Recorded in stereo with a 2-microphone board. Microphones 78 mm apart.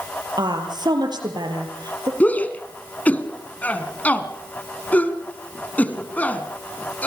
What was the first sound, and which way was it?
A woman speaking, 65° right (ahead or behind).